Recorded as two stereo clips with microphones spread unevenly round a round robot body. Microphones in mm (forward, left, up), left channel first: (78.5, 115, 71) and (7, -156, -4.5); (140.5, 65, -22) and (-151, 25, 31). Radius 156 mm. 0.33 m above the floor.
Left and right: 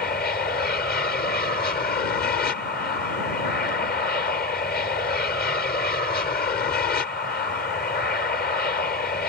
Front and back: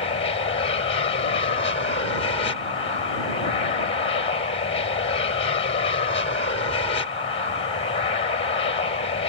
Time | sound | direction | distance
0.0 | an aircraft | 25° left | ?